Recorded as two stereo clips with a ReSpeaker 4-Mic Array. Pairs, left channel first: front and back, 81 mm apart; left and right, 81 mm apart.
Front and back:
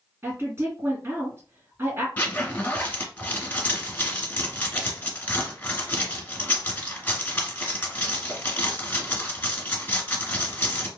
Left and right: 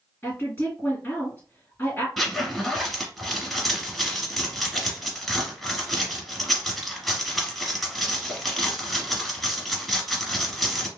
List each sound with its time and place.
0.2 s a woman speaking: 140° left, 2.0 m
2.2 s a zipper: 5° left, 1.1 m